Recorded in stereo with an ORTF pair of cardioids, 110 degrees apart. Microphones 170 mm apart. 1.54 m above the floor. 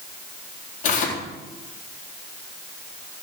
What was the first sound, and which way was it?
Tearing paper, 50° left.